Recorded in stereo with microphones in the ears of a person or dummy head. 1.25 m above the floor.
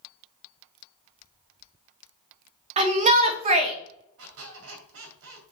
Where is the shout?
35° right (ahead or behind), 1.4 m.